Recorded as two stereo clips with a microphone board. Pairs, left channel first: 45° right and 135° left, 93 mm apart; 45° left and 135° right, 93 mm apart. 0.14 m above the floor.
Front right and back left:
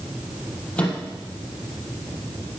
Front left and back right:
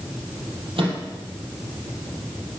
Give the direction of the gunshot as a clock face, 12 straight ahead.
No gunshot in this recording.